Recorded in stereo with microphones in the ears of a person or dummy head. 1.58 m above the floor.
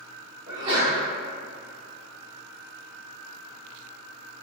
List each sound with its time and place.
0.5 s a sneeze: 25° right (ahead or behind), 1.1 m